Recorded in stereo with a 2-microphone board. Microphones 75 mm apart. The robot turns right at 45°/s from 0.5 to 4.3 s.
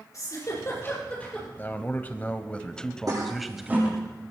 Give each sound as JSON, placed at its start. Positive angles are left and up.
{"t": 0.1, "sound": "a giggle", "side_deg": 50, "distance_m": 8.5}
{"t": 1.6, "sound": "a man speaking", "side_deg": 30, "distance_m": 1.3}
{"t": 3.1, "sound": "a toilet flushing", "side_deg": -55, "distance_m": 7.5}